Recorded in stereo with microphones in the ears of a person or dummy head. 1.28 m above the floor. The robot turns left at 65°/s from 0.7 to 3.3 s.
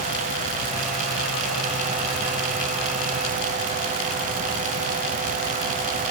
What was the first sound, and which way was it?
Only background noise.